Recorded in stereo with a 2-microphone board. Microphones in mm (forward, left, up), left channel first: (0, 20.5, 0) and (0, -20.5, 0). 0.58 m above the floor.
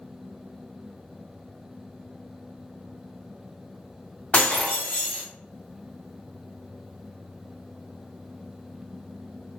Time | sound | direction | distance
4.3 | breaking glass | 30° left (ahead or behind) | 1.4 m